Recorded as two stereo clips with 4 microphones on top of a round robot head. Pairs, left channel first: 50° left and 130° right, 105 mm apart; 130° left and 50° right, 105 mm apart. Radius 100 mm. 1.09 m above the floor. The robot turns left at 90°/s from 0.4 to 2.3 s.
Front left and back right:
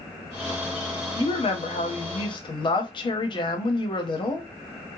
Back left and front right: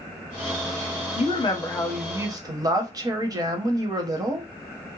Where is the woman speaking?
110° left, 0.7 m; by 4.5 s 5° left, 0.7 m.